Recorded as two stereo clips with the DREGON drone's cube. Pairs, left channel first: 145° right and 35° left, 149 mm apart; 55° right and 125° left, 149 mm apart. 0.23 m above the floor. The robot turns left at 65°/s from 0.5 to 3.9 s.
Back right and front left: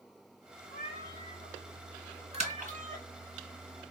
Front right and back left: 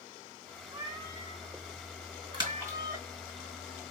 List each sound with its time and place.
0.7 s a cat meowing: 160° right, 2.0 m; by 3.1 s 45° left, 2.0 m
2.3 s a splash: 75° left, 3 m; by 2.8 s 45° left, 3 m